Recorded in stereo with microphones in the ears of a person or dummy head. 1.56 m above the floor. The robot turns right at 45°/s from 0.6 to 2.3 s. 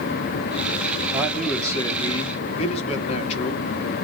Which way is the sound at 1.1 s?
15° right.